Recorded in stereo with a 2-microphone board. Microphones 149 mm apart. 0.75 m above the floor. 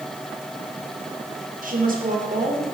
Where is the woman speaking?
65° right (ahead or behind), 2.5 m.